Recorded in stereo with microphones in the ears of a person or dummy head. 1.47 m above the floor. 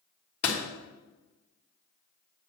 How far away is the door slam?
About 2.5 m.